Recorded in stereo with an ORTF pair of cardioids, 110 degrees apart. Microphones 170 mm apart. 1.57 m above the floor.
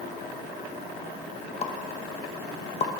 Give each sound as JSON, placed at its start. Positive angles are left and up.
{"t": 1.6, "sound": "a pop", "azimuth_deg": 35, "distance_m": 1.6}